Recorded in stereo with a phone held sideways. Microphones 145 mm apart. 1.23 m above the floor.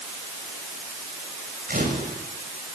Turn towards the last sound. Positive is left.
turn(degrees=-75)  # may be behind; listen again after turning